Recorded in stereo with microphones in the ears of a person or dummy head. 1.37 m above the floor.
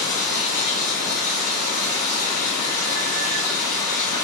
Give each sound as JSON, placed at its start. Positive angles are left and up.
{"t": 0.0, "sound": "running water", "side_deg": 45, "distance_m": 1.9}